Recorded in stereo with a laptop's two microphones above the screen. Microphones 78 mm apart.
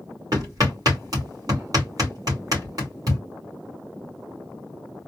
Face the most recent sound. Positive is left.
turn(degrees=-50)  # may be behind; listen again after turning